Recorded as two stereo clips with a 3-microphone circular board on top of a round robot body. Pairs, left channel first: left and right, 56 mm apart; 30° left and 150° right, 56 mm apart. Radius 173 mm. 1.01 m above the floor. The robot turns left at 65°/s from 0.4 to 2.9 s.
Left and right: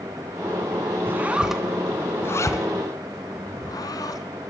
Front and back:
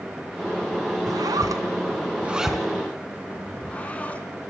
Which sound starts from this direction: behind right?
A zipper, at 1.1 s.